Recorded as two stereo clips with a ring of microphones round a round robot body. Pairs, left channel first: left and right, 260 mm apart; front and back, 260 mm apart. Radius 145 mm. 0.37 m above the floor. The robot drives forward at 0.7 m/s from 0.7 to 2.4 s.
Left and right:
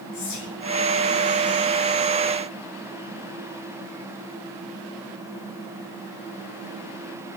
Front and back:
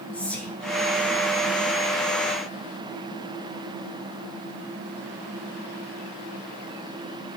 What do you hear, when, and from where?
0.1 s whispering: 85° left, 7 m